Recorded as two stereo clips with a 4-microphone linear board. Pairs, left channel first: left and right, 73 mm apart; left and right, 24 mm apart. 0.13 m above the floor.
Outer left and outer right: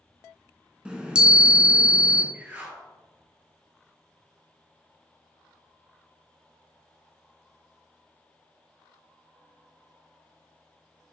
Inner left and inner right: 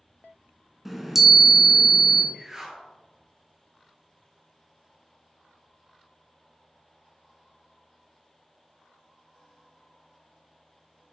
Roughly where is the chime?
Centre.